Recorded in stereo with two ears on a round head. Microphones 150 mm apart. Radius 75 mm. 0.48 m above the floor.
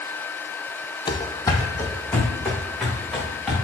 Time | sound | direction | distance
1.1 | running footsteps | 30° left (ahead or behind) | 0.6 m